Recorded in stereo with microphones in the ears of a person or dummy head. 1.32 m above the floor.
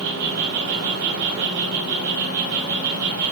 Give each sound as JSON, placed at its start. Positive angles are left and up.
{"t": 0.0, "sound": "an insect", "side_deg": -65, "distance_m": 9.5}